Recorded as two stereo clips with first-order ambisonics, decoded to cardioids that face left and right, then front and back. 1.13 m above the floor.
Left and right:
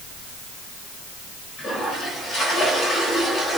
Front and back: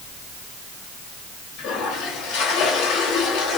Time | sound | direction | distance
1.6 | a toilet flushing | 25° left | 3.5 m